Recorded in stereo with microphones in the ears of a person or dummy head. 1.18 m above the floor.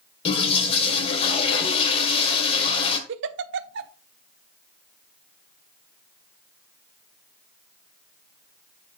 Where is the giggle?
60° right (ahead or behind), 0.6 m.